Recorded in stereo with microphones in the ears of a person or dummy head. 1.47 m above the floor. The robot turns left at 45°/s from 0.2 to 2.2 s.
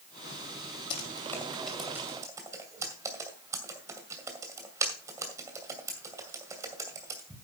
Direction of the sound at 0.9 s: 35° left (ahead or behind).